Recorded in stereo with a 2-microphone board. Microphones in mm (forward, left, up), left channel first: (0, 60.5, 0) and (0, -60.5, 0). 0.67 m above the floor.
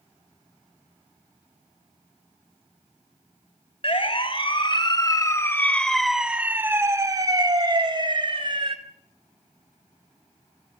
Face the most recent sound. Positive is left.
turn(degrees=-45)  # may be behind; listen again after turning